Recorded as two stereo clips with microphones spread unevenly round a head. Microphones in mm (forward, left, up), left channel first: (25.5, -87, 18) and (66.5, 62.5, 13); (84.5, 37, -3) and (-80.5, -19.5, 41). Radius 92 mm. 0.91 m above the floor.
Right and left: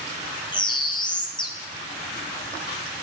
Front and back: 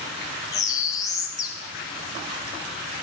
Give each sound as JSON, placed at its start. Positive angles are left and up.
{"t": 0.5, "sound": "a bird", "azimuth_deg": -45, "distance_m": 1.0}